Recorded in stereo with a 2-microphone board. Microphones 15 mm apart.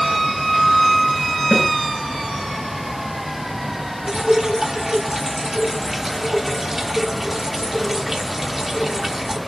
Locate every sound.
1.5 s a snare drum: 10° left (ahead or behind), 6 m
4.1 s dripping: 30° right (ahead or behind), 1.5 m